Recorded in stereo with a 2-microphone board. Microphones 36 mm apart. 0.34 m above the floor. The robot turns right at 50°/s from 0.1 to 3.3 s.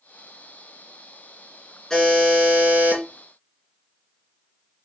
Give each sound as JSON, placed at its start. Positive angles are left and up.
{"t": 1.9, "sound": "a buzzer", "azimuth_deg": 170, "distance_m": 2.5}